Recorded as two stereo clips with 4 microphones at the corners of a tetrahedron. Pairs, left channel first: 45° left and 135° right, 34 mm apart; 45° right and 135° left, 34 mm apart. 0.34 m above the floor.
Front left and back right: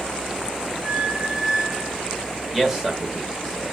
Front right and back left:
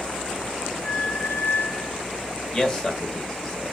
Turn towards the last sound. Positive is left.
turn(degrees=-85)